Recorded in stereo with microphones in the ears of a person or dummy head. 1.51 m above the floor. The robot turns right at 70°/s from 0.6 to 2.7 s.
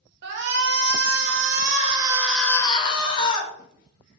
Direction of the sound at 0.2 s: 120° right.